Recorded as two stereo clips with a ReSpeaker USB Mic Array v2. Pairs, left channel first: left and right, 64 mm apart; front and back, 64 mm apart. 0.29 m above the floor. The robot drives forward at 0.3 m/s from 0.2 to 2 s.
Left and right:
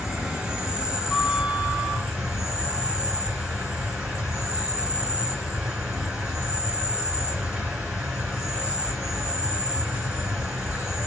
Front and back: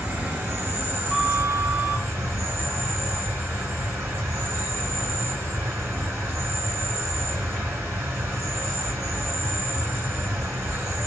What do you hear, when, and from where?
0.0 s an insect: 155° right, 1.8 m; by 11.1 s 165° right, 2 m
1.1 s a flute: 160° right, 1.7 m; by 2.1 s 165° right, 1.8 m